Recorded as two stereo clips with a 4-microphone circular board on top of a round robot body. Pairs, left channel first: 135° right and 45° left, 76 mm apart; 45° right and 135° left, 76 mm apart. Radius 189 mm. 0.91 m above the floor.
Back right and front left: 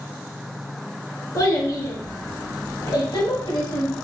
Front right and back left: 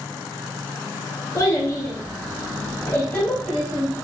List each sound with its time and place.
1.4 s a child speaking: 95° right, 1.5 m; by 4.0 s 125° right, 2.5 m